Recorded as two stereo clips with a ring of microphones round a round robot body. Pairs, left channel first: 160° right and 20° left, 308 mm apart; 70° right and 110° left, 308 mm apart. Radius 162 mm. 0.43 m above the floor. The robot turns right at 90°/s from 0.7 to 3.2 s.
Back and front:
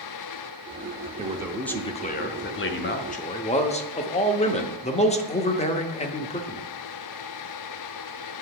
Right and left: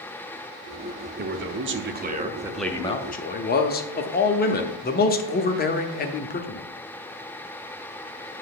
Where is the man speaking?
75° left, 0.9 m; by 6.6 s 105° right, 0.9 m.